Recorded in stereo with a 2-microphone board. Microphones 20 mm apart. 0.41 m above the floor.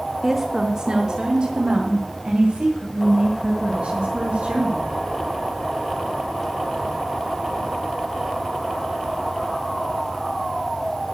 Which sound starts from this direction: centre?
A woman speaking, at 0.2 s.